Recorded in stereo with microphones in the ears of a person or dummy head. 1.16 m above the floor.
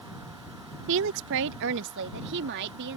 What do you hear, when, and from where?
0.9 s a woman speaking: 70° right (ahead or behind); by 3.0 s 60° right (ahead or behind)